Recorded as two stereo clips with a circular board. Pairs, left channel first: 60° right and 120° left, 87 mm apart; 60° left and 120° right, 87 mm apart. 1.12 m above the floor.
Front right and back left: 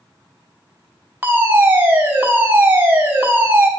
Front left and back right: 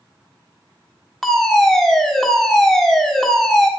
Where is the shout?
I don't hear a shout.